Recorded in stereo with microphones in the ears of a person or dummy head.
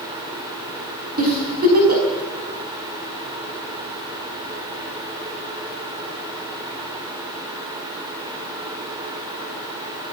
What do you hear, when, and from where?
1.2 s a giggle: 50° right (ahead or behind), 5.5 m